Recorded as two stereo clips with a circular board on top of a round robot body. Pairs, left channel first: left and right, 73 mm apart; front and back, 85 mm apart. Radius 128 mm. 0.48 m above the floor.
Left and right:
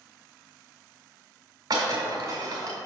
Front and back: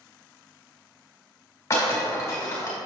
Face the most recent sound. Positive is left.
turn(degrees=-60)